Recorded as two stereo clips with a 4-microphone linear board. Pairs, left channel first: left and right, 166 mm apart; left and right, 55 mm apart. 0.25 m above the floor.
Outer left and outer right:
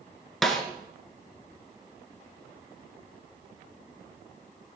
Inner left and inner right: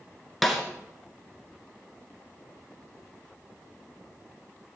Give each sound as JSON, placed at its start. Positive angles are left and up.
{"t": 0.4, "sound": "a snare drum", "side_deg": 0, "distance_m": 2.0}